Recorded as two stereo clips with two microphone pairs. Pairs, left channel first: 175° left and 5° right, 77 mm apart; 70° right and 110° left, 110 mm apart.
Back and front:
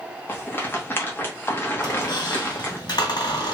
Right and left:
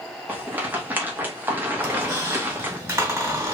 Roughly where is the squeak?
Behind.